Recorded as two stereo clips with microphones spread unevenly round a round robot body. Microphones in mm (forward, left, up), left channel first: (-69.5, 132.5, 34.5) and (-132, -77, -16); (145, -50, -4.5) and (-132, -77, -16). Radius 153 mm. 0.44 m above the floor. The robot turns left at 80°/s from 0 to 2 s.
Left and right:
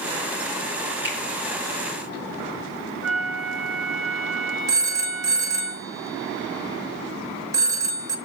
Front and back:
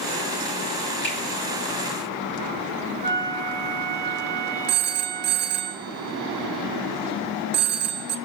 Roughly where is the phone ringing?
Behind right.